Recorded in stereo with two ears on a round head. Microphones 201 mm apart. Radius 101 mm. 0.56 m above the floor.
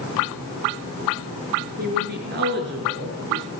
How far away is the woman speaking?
About 9.5 m.